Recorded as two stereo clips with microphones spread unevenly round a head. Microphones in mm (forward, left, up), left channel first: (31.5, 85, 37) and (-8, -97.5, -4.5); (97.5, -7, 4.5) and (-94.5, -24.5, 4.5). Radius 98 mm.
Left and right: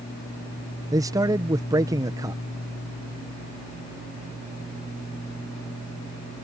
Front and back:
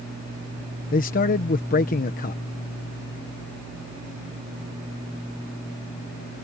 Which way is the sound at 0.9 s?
35° right.